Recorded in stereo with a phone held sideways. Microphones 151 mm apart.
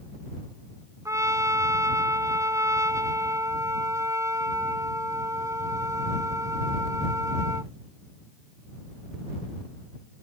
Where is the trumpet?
20° right (ahead or behind).